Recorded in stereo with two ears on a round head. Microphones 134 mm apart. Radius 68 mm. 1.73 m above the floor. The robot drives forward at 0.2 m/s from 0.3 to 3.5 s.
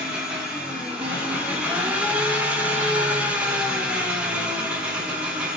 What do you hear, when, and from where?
0.0 s an engine running: 5° right (ahead or behind), 0.8 m; by 5.6 s 10° right (ahead or behind), 0.6 m